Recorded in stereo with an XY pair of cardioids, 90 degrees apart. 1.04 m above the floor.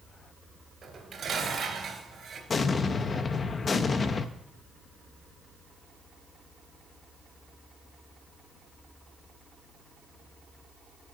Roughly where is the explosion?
Ahead left.